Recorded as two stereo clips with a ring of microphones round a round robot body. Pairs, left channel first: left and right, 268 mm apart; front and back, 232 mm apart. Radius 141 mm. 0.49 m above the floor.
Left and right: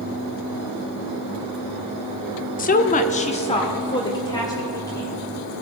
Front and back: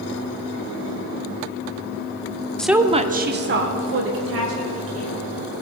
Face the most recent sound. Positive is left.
turn(degrees=170)